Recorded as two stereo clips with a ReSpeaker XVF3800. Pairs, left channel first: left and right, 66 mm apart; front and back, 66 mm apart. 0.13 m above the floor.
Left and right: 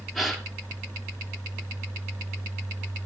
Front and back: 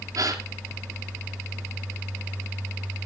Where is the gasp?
Straight behind, 3 m.